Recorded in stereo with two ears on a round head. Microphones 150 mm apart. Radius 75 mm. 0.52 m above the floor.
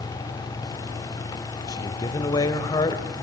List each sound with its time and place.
1.7 s a man speaking: 25° left (ahead or behind), 2.0 m